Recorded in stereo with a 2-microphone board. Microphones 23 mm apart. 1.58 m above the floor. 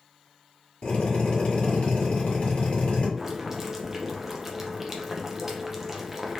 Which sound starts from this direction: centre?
Boiling, at 3.2 s.